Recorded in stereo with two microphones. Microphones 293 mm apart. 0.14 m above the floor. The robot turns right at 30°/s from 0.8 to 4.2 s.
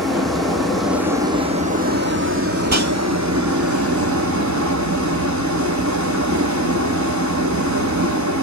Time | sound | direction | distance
0.0 | running water | straight behind | 1.7 m
2.6 | a whoosh | 70° right (ahead or behind) | 1.3 m